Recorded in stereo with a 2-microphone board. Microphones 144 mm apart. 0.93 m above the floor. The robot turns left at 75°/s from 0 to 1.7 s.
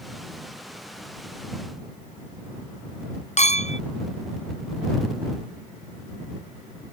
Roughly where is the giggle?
No giggle in this recording.